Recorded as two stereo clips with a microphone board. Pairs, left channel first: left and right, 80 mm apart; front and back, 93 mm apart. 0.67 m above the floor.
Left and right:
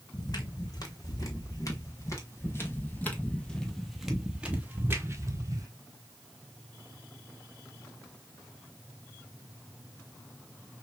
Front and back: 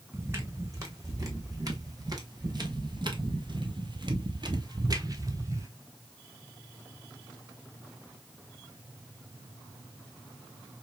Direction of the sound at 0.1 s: 120° left.